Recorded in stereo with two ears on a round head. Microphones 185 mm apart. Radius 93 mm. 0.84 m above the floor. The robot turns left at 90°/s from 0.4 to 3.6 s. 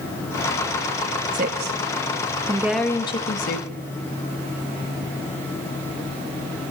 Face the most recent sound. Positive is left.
turn(degrees=50)  # may be behind; listen again after turning